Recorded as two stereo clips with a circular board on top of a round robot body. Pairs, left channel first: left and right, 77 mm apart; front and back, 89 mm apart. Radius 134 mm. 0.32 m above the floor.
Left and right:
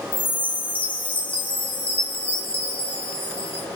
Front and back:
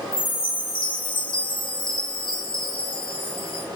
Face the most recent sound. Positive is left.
turn(degrees=20)